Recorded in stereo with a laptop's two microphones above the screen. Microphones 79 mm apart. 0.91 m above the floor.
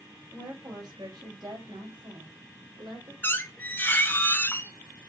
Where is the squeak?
25° left (ahead or behind), 0.7 m.